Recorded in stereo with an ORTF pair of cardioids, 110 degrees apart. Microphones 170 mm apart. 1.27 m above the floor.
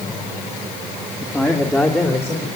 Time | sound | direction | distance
1.2 | a man speaking | 10° left | 2 m